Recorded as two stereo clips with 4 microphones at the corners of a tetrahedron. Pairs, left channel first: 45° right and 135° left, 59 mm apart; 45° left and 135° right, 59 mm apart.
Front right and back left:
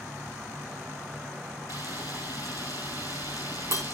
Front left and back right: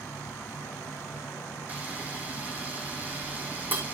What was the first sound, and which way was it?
An insect, 60° left.